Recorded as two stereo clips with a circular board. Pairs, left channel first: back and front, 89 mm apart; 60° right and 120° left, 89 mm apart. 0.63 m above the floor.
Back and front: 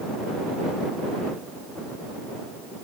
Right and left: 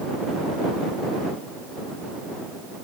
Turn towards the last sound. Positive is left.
No sound to turn to.